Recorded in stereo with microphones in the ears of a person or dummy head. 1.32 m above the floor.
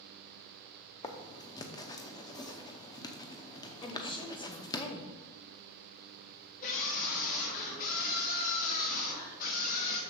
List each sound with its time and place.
1.0 s writing: 20° left (ahead or behind), 0.7 m
3.8 s a woman speaking: 20° left (ahead or behind), 1.0 m
6.6 s a scream: 45° left (ahead or behind), 2.5 m